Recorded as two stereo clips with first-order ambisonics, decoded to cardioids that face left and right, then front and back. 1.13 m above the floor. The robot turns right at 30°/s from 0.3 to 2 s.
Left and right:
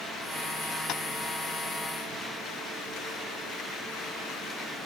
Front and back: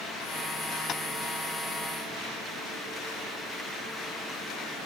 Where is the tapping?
50° left, 1.0 m; by 1.0 s 55° left, 1.0 m.